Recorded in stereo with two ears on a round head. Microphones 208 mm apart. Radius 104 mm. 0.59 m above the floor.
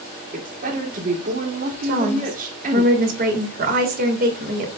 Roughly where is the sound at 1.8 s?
Right.